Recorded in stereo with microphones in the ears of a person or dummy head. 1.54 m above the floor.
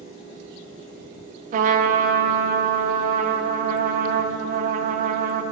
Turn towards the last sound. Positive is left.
turn(degrees=-40)  # may be behind; listen again after turning